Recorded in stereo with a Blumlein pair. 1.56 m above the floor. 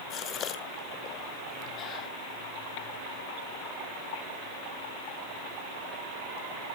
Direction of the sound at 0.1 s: 30° left.